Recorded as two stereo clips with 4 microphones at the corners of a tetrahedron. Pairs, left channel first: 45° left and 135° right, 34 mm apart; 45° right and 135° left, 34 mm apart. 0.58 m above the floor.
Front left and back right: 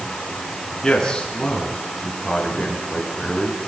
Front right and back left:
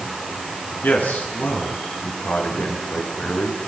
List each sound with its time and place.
0.8 s a man speaking: 25° right, 8 m